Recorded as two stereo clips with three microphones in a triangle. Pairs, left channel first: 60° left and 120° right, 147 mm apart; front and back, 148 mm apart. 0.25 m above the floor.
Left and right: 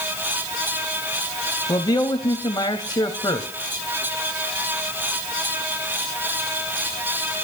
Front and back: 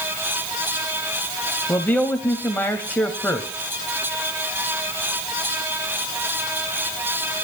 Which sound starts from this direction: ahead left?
A man speaking, at 1.7 s.